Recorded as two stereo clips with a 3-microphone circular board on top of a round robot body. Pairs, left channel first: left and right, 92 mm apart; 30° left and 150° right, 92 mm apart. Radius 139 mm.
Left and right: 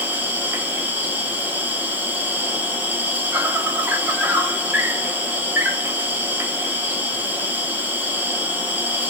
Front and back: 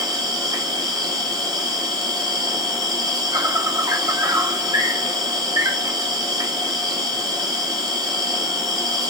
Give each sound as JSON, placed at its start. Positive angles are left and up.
{"t": 0.0, "sound": "an insect", "azimuth_deg": -150, "distance_m": 1.3}